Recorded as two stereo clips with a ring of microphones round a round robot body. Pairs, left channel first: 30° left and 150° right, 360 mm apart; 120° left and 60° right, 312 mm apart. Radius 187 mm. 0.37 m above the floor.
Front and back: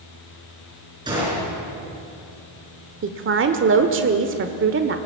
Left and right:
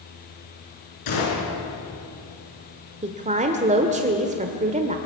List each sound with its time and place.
1.1 s a gunshot: 130° left, 7 m
3.0 s a woman speaking: 115° right, 1.2 m